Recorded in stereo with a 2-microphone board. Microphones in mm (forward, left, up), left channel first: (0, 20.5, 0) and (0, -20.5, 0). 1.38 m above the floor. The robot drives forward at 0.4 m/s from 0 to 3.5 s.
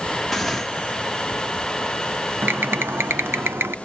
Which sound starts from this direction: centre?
Tearing paper, at 0.3 s.